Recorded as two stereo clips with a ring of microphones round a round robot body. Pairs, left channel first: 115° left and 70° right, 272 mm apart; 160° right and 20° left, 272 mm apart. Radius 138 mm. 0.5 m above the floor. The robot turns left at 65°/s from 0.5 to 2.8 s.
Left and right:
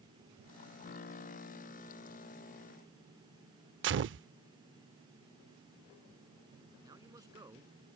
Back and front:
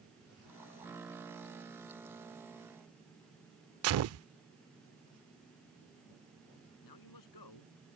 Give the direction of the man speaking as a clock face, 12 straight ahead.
5 o'clock.